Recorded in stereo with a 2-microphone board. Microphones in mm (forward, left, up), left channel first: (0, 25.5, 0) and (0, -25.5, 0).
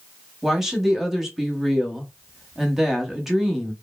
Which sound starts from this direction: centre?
A woman speaking, at 0.4 s.